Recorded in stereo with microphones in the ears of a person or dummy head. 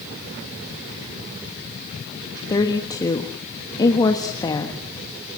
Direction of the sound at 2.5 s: 20° left (ahead or behind).